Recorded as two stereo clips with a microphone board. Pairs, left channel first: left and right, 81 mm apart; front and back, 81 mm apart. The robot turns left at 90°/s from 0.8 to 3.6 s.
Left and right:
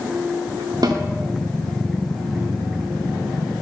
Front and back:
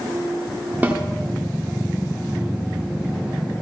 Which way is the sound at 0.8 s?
115° right.